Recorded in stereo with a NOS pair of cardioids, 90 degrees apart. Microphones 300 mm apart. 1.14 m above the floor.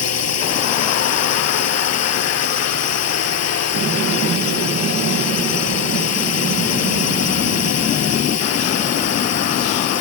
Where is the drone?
55° left.